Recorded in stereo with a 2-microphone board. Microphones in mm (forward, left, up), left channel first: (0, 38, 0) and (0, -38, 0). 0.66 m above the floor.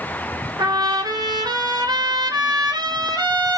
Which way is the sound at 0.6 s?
70° right (ahead or behind).